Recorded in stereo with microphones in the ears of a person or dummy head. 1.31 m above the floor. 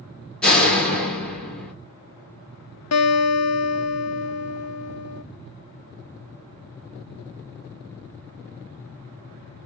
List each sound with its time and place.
0.4 s a door slam: 5° left (ahead or behind), 1.1 m
2.9 s a guitar: 80° left, 0.8 m